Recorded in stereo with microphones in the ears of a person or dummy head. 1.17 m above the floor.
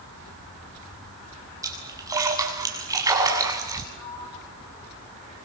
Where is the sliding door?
35° left (ahead or behind), 9 m.